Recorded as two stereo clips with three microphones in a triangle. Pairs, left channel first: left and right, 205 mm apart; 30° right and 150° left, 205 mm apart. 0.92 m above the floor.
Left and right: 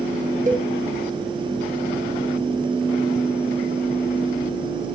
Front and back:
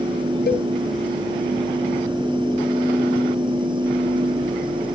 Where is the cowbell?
50° right, 0.6 m.